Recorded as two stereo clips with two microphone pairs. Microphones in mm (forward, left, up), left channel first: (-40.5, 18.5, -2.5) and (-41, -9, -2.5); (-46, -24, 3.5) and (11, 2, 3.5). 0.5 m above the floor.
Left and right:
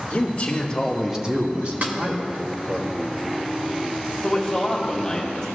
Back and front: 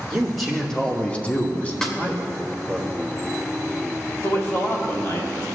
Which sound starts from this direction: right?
A snare drum, at 1.8 s.